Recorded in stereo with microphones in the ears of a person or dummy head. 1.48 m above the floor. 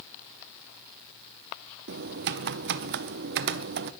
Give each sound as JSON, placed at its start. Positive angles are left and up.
{"t": 1.9, "sound": "typing on a keyboard", "side_deg": -55, "distance_m": 0.5}